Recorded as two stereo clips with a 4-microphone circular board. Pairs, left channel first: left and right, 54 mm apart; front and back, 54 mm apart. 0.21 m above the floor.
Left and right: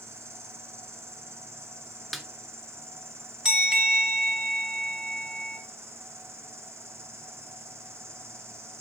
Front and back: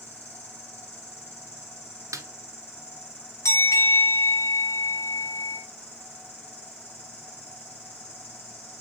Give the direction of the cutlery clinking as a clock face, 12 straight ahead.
No cutlery clinking in this recording.